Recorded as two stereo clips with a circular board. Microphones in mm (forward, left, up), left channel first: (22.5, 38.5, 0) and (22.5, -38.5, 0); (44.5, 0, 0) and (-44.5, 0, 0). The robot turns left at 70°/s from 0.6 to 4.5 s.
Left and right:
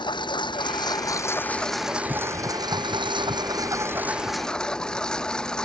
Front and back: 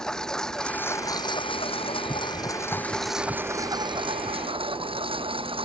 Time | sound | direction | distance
0.0 | a lawn mower | 80° left | ?